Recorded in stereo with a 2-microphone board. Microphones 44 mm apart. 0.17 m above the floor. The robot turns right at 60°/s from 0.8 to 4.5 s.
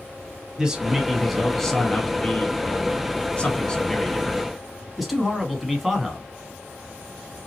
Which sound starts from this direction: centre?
A man speaking, at 0.6 s.